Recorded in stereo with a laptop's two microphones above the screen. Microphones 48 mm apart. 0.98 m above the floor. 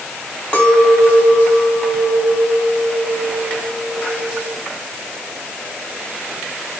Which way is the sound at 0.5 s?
25° left (ahead or behind).